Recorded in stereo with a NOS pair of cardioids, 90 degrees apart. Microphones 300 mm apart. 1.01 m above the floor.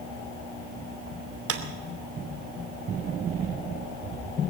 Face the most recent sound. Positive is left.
turn(degrees=-50)